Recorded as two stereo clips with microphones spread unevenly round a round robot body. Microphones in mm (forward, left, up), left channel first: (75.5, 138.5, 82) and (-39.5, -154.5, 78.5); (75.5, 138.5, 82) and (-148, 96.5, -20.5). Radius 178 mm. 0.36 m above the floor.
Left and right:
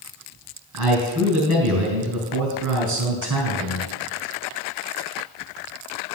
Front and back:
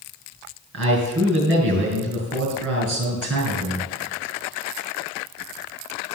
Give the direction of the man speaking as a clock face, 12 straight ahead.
5 o'clock.